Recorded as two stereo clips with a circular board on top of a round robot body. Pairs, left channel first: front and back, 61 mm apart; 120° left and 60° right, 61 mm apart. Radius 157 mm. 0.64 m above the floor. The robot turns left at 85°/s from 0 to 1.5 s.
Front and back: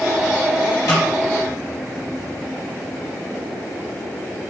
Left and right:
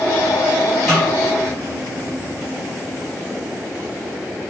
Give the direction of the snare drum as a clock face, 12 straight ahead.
11 o'clock.